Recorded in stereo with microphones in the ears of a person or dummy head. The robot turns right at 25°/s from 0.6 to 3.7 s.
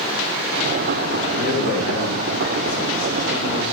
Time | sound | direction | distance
1.3 | a man speaking | 45° left | 2.5 m